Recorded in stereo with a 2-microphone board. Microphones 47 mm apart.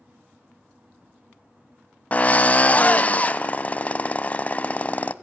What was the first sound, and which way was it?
A drill, 30° left (ahead or behind).